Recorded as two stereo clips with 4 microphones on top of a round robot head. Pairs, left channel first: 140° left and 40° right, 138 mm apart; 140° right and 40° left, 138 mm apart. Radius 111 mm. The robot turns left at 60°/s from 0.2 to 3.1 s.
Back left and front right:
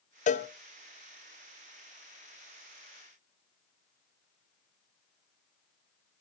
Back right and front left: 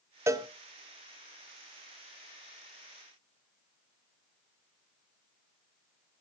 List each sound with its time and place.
0.3 s a cowbell: 110° left, 0.9 m; by 0.5 s 95° left, 0.9 m